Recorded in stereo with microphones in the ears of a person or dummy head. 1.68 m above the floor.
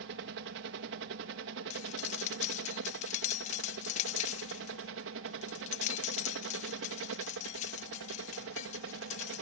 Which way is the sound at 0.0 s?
65° right (ahead or behind).